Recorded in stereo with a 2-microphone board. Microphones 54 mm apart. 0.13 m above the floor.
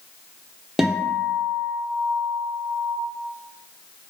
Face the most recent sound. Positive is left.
turn(degrees=-10)  # may be behind; listen again after turning